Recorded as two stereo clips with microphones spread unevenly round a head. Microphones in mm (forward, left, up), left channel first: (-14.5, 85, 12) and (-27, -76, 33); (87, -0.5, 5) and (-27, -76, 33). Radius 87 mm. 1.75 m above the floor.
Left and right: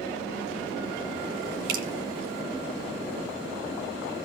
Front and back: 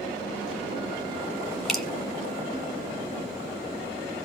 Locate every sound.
1.7 s dripping: 65° right, 2.0 m